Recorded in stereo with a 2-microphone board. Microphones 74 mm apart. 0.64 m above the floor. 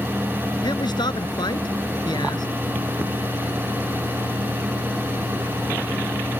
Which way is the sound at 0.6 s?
85° left.